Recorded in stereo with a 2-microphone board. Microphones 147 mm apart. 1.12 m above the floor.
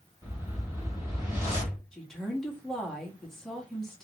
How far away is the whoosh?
About 2.0 m.